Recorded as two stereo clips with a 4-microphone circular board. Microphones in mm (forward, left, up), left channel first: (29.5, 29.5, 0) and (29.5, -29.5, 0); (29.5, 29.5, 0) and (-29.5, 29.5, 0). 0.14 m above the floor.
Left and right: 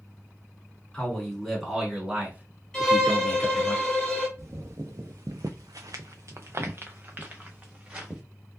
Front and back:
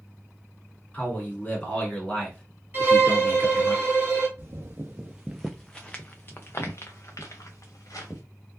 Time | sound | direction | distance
0.9 | a man speaking | 25° left | 1.3 m
2.7 | a violin | 165° left | 1.4 m
4.4 | footsteps | 130° right | 0.9 m